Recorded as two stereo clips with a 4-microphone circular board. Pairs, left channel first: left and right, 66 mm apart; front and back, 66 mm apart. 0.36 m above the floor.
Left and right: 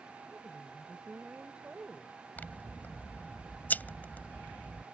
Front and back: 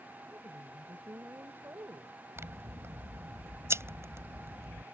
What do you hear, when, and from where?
0.3 s a woman speaking: 155° right
2.4 s scissors: 145° left